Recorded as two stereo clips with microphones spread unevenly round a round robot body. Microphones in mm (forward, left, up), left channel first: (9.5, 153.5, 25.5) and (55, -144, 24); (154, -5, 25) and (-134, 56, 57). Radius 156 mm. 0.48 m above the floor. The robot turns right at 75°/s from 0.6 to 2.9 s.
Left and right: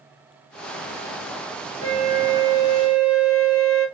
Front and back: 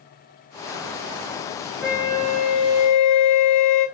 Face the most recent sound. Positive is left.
turn(degrees=-10)